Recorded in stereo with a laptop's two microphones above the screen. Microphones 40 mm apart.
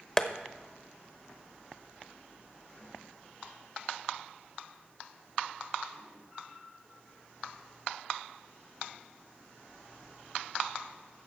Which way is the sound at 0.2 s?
15° left (ahead or behind).